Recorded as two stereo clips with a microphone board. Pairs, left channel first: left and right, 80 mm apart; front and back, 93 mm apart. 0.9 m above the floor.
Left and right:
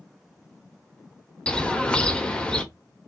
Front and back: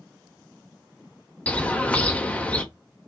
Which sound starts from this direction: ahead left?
A bird, at 1.5 s.